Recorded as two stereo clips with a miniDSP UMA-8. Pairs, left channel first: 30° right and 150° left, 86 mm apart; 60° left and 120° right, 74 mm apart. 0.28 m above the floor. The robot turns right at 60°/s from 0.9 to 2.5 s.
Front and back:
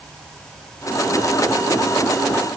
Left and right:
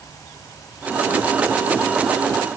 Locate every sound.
Only background noise.